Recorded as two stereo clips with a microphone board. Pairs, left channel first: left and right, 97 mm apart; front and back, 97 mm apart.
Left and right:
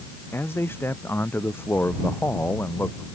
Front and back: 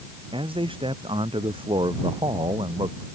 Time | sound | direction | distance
0.3 | a man speaking | 155° left | ?